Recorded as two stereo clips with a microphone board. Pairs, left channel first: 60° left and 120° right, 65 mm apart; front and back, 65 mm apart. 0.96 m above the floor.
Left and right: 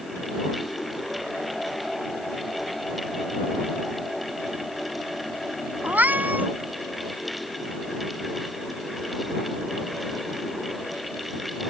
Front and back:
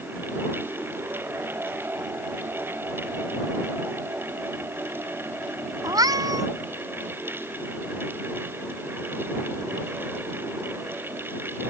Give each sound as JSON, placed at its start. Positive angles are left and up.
{"t": 5.8, "sound": "a cat meowing", "azimuth_deg": 175}